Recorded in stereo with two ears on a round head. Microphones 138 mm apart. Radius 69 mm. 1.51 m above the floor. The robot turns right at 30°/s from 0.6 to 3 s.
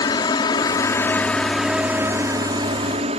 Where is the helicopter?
150° left; by 3.2 s 135° right.